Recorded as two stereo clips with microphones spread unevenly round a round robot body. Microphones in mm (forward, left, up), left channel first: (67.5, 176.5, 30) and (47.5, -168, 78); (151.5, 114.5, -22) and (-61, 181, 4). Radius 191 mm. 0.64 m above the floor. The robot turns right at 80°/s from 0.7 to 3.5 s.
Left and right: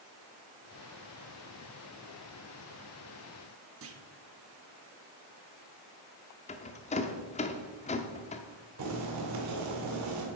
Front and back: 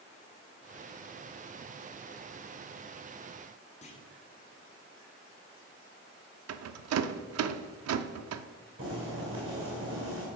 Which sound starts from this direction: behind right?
Boiling, at 8.8 s.